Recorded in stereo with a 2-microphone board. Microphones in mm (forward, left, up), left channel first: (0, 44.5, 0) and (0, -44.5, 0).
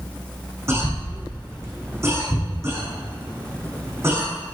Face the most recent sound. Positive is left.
turn(degrees=-30)  # may be behind; listen again after turning